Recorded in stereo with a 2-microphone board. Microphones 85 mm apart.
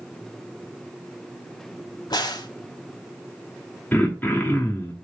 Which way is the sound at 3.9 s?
20° left (ahead or behind).